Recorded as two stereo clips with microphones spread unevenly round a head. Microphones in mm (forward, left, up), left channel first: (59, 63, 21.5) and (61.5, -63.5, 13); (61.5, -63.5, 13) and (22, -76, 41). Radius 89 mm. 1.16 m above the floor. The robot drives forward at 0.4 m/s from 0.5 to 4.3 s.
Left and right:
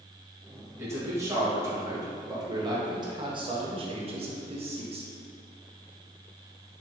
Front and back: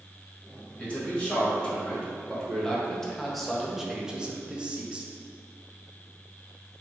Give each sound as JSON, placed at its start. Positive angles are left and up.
{"t": 0.8, "sound": "a man speaking", "azimuth_deg": -20, "distance_m": 1.8}